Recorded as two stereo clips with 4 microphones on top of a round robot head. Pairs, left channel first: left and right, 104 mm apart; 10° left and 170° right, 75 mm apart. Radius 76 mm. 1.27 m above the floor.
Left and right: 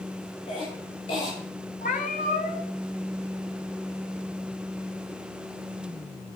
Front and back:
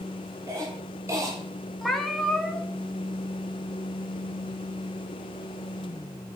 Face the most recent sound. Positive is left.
turn(degrees=100)